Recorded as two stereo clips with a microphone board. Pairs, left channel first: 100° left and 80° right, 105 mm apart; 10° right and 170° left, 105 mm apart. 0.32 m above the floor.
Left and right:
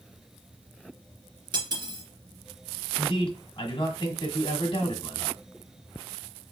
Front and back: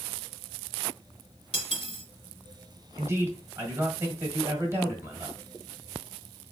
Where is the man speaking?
110° left, 1.5 m.